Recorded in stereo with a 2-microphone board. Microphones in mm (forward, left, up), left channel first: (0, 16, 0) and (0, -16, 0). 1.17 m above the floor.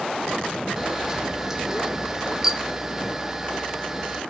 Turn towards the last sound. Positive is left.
turn(degrees=-15)  # may be behind; listen again after turning